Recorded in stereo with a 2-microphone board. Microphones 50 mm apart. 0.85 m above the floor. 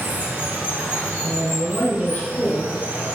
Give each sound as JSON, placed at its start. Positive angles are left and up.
{"t": 0.0, "sound": "running water", "side_deg": -50, "distance_m": 1.2}
{"t": 1.2, "sound": "a man speaking", "side_deg": 40, "distance_m": 0.6}